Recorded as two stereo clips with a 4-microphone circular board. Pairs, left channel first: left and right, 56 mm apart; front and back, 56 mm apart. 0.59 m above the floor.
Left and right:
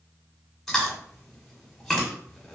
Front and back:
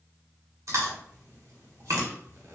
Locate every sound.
0.7 s chewing: 175° left, 1.2 m